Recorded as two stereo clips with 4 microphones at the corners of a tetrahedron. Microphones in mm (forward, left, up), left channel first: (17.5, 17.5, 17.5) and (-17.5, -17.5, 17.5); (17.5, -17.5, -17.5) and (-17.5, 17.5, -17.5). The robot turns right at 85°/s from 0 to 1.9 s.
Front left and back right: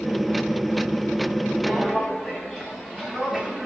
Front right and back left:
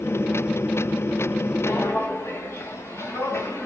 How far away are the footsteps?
About 2.5 m.